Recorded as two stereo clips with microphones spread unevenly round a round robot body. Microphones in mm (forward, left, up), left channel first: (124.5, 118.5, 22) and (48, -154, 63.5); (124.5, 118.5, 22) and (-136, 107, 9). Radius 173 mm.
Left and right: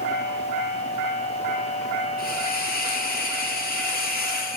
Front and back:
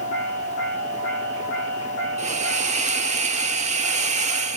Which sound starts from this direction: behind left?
A hiss, at 2.2 s.